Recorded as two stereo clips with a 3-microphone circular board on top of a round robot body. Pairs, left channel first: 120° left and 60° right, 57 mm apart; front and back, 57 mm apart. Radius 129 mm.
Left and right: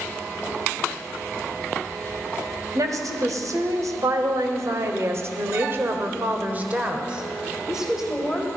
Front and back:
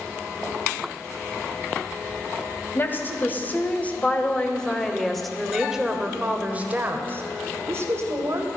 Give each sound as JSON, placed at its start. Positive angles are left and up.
{"t": 2.8, "sound": "a woman speaking", "azimuth_deg": -50, "distance_m": 2.5}